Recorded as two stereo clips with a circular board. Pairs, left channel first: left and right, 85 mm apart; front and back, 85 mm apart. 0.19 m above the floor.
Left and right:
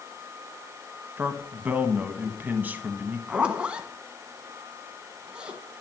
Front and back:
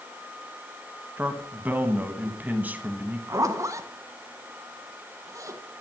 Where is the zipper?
160° right, 0.9 m.